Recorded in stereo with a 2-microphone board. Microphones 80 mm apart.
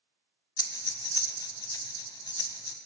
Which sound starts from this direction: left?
Breathing, at 0.6 s.